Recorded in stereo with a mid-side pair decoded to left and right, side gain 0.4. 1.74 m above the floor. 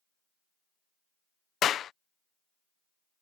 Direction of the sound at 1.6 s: 70° left.